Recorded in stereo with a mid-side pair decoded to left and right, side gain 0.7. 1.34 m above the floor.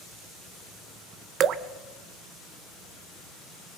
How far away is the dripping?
About 1.5 m.